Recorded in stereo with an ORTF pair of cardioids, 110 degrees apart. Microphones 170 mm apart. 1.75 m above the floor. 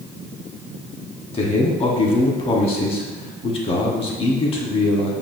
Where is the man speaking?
35° left, 1.0 m.